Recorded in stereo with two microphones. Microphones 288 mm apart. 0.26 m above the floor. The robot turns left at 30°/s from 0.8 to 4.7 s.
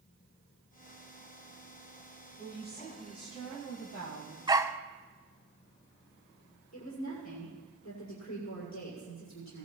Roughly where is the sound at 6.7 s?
Left.